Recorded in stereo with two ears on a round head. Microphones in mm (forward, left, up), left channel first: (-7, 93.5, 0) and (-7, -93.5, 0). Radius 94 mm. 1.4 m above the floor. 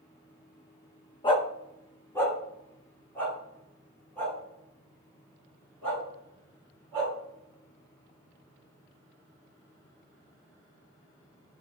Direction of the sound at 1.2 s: 25° left (ahead or behind).